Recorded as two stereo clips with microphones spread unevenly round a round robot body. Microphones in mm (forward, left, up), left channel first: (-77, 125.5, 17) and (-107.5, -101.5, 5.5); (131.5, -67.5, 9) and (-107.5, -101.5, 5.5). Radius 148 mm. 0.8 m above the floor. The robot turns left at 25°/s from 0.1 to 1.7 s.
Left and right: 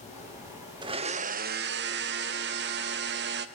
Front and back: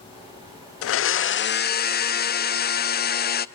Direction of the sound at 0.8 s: 25° right.